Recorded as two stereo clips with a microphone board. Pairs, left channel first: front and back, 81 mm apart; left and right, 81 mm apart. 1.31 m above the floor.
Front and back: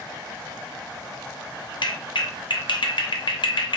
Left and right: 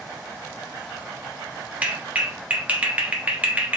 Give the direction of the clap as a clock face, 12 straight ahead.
1 o'clock.